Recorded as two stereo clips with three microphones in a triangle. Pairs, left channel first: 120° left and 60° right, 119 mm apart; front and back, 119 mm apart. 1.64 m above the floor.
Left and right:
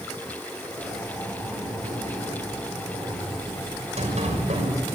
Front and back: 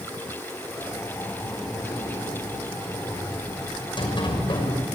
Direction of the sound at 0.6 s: 45° right.